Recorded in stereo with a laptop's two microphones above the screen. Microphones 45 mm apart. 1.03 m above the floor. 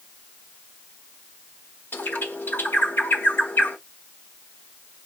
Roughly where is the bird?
Left.